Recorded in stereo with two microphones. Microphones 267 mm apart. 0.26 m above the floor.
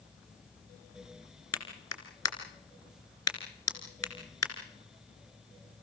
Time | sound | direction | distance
1.5 | a clap | 75° left (ahead or behind) | 2.5 m